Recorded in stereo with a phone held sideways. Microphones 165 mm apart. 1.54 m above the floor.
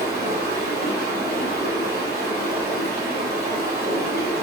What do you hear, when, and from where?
0.0 s running water: 75° right (ahead or behind), 1.8 m